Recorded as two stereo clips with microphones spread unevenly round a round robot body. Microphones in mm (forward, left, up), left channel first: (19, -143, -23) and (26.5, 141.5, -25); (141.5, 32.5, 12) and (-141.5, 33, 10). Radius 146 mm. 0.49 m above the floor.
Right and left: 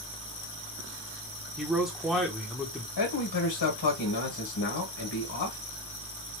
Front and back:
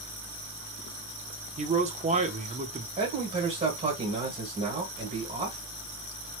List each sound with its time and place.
1.6 s a man speaking: 175° left, 0.7 m
3.0 s a man speaking: 115° right, 1.6 m